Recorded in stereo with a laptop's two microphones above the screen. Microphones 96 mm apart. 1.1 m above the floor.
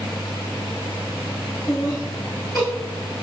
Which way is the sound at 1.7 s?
15° left (ahead or behind).